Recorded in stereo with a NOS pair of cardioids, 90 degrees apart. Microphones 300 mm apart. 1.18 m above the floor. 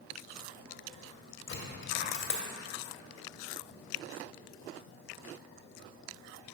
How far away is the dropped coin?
About 2.5 m.